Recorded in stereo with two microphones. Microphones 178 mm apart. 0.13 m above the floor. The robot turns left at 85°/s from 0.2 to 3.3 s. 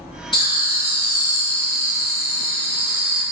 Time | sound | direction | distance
0.3 | laughter | 120° left | 1.4 m